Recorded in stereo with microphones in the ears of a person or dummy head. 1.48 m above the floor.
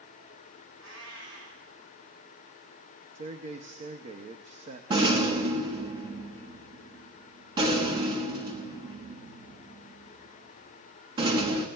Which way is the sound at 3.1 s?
45° right (ahead or behind).